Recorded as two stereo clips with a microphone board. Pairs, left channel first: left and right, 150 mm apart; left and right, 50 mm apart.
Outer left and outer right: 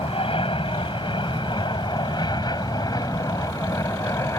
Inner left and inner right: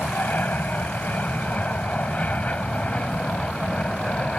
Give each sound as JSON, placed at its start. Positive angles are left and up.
{"t": 0.0, "sound": "an aircraft", "side_deg": 40}